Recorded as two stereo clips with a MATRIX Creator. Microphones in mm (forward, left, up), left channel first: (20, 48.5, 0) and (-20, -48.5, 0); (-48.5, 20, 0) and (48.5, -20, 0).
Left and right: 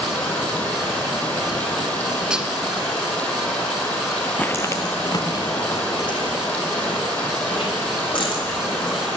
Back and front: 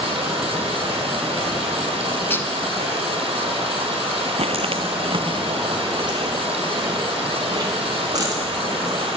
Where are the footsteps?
10° right, 0.8 m; by 9.1 s 30° left, 6.5 m.